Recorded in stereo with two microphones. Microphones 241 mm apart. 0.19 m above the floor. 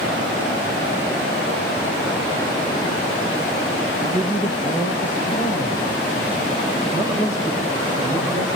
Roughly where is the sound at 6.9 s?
Left.